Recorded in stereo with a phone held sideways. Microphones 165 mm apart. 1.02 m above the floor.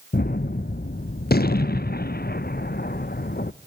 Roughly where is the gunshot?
Left.